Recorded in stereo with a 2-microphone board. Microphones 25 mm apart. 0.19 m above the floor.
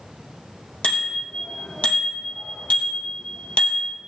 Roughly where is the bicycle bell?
Left.